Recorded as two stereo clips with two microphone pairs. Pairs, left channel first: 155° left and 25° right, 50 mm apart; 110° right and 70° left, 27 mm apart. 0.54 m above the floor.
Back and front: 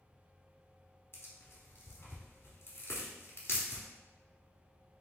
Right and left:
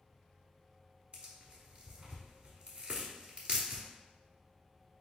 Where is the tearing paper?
115° left, 1.0 m.